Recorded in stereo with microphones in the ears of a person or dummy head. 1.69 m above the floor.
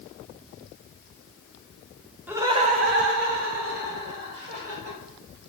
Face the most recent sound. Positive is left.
turn(degrees=-55)  # may be behind; listen again after turning